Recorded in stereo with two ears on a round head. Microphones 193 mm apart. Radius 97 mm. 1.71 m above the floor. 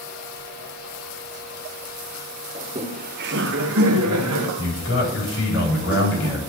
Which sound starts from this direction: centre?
Laughter, at 2.5 s.